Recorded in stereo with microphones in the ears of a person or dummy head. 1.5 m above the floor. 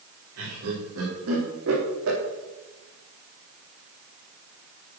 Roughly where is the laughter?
Right.